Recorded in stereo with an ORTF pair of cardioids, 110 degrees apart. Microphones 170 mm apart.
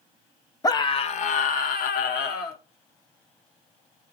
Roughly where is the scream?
Ahead.